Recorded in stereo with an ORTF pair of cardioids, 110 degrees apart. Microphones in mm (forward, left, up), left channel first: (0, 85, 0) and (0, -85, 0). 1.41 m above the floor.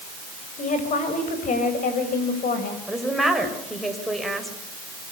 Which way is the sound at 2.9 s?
Straight ahead.